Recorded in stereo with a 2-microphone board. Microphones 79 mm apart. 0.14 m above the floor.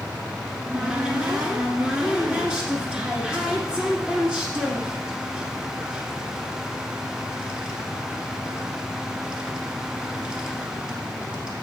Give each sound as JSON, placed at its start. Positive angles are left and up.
{"t": 0.5, "sound": "a cupboard door", "side_deg": -10, "distance_m": 1.6}